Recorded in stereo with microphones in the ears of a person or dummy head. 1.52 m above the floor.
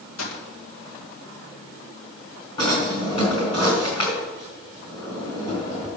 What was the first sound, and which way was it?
A gunshot, 85° left.